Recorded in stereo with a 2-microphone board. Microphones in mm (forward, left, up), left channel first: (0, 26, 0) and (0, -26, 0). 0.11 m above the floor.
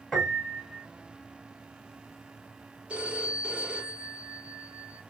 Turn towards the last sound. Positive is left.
turn(degrees=-25)  # may be behind; listen again after turning